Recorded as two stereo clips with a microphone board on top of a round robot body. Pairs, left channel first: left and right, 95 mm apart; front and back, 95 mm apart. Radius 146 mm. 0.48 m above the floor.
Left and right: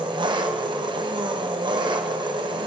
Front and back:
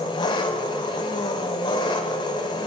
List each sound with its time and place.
0.0 s an engine running: 45° right, 1.4 m